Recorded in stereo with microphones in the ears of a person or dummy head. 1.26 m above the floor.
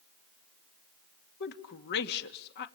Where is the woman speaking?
55° left (ahead or behind), 2 m.